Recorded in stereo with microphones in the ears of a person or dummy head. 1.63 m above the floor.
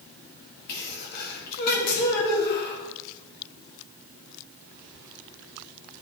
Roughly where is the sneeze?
Left.